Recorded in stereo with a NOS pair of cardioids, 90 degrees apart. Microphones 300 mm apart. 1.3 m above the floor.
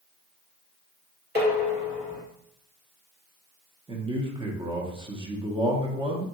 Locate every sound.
1.4 s dishes clattering: 35° right, 1.4 m
3.9 s a man speaking: 15° right, 0.9 m